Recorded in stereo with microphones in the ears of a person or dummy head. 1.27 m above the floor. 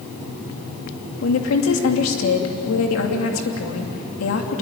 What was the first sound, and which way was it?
A woman speaking, 75° left (ahead or behind).